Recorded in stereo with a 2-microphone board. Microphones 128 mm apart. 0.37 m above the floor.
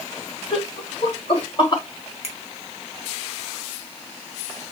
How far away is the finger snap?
About 2.0 m.